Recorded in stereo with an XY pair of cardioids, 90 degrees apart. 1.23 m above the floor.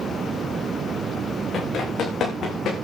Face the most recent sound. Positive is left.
turn(degrees=70)